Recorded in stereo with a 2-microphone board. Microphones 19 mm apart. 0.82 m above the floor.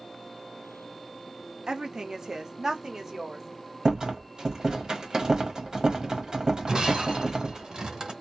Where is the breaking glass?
40° right (ahead or behind), 1.3 m.